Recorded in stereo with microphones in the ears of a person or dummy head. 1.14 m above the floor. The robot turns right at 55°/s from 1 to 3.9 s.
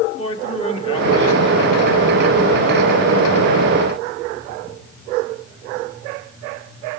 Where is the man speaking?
30° left, 2.5 m; by 3.2 s 150° left, 2.5 m.